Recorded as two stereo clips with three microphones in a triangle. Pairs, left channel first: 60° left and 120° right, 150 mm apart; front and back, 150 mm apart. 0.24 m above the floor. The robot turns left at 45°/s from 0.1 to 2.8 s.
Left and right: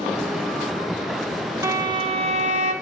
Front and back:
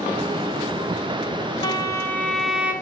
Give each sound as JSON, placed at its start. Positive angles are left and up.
{"t": 1.6, "sound": "a violin", "azimuth_deg": -55, "distance_m": 1.8}